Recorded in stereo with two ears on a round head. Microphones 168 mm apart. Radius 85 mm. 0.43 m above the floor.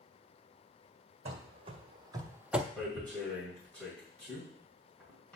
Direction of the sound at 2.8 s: 5° left (ahead or behind).